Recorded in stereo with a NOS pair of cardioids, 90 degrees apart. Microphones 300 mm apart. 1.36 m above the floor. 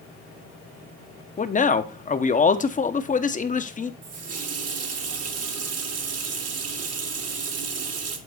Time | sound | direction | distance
1.4 | a man speaking | 25° left | 0.8 m
4.0 | a running tap | 55° right | 1.5 m